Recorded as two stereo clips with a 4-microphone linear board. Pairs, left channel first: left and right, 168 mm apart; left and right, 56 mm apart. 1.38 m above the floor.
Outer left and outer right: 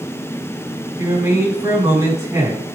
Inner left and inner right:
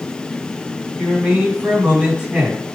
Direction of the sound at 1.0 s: 15° right (ahead or behind).